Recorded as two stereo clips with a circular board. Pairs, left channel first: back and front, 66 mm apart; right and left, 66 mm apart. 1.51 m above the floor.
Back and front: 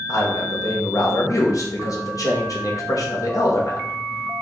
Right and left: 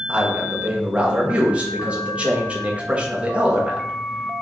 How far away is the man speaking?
About 0.8 m.